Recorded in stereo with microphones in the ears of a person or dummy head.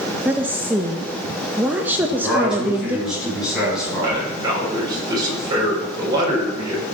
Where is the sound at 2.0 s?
5° right (ahead or behind), 7.5 m.